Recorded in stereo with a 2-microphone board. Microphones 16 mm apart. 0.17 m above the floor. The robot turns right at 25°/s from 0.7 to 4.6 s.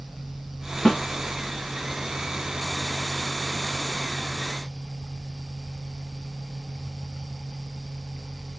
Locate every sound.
0.8 s a snare drum: 40° left (ahead or behind), 0.8 m